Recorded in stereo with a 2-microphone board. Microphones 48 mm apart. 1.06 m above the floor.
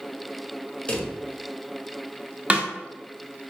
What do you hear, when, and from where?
0.9 s a drawer: 25° left (ahead or behind), 0.7 m
2.5 s a snare drum: 30° right (ahead or behind), 0.6 m